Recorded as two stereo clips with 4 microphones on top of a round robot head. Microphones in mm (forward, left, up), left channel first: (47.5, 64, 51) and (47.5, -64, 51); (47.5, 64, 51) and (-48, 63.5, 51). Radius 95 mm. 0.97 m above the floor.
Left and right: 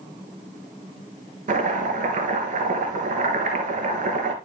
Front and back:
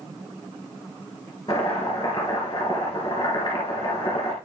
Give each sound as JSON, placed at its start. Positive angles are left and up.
{"t": 1.5, "sound": "chopping", "azimuth_deg": -70, "distance_m": 3.0}